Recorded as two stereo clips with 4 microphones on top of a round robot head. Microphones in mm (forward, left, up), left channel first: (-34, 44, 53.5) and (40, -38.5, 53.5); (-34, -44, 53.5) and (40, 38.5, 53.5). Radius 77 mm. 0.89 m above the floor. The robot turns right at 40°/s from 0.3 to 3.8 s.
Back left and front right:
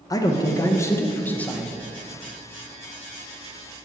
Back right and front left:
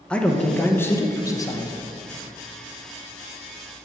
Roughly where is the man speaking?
Behind left.